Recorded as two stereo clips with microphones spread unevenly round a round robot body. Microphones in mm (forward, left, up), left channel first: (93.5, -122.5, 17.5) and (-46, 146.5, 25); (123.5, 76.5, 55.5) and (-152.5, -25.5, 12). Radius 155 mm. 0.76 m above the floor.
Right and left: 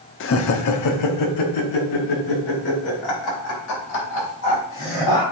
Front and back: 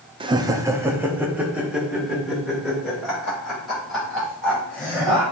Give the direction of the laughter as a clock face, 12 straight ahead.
3 o'clock.